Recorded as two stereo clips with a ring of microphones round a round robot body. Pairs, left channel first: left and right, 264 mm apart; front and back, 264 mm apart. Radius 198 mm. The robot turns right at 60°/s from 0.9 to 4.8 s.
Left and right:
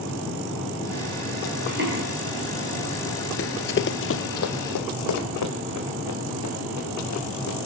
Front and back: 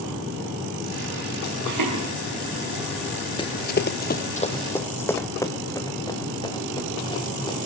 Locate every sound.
1.6 s footsteps: 160° right, 6.5 m; by 2.0 s 135° right, 6.5 m
3.4 s running footsteps: 65° left, 0.7 m; by 7.6 s 75° left, 6 m